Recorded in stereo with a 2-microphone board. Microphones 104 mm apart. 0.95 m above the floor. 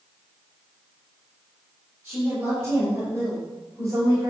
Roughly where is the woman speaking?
Centre.